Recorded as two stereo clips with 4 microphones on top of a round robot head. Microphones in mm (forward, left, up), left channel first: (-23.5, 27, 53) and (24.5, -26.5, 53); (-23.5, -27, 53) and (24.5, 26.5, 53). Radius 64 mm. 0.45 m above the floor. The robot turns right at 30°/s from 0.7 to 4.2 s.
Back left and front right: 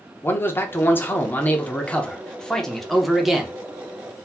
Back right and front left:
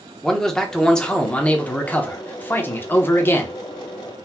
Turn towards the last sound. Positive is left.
turn(degrees=-105)